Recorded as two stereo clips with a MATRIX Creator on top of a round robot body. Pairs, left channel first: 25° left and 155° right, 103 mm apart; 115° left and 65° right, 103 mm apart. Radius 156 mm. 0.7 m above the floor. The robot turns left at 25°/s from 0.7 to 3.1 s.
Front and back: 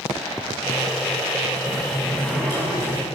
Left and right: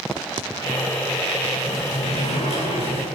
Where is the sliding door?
115° left, 10 m; by 3.0 s 80° left, 10 m.